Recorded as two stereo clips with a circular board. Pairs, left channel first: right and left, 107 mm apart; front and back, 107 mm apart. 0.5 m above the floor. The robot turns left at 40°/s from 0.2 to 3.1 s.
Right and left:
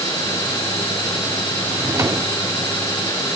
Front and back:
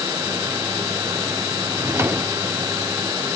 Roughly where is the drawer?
Behind left.